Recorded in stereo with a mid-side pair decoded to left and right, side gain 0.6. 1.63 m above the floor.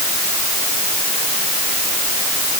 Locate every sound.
Only background noise.